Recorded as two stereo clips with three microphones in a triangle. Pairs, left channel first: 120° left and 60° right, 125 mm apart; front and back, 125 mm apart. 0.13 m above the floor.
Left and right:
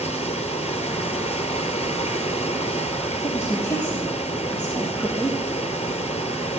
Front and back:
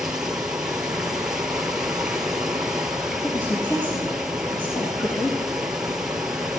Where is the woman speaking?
50° left, 4.5 m.